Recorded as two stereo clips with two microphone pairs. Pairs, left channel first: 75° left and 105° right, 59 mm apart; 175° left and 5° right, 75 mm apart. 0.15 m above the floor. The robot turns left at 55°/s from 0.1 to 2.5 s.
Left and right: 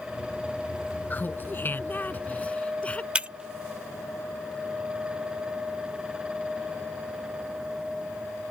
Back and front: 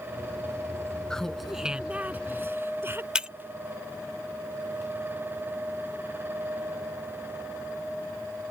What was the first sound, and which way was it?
Laughter, 100° left.